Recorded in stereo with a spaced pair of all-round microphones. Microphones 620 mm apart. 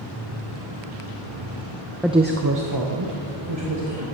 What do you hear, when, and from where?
2.0 s a woman speaking: centre (ahead or behind), 0.5 m; by 4.0 s 50° right (ahead or behind), 2 m